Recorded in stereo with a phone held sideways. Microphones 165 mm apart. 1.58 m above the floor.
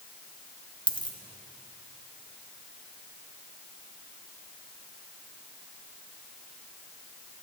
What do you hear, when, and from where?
0.9 s a dropped coin: 30° left (ahead or behind), 1.2 m